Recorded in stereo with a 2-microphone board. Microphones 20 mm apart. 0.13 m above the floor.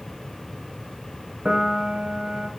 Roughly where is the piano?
Right.